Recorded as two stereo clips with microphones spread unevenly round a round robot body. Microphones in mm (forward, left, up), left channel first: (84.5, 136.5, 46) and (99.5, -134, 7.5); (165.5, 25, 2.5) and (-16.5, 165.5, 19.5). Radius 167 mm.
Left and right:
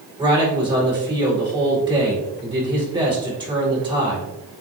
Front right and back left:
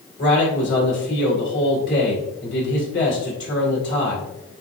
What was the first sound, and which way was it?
A man speaking, 20° right.